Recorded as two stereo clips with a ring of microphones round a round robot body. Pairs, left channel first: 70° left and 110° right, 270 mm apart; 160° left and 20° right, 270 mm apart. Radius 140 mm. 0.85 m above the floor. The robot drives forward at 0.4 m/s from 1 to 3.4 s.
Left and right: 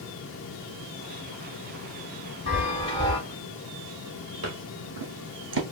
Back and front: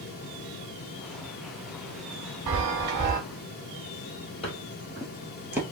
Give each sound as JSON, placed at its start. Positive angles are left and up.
{"t": 2.5, "sound": "a chime", "azimuth_deg": 0, "distance_m": 0.7}
{"t": 4.4, "sound": "footsteps", "azimuth_deg": -135, "distance_m": 1.4}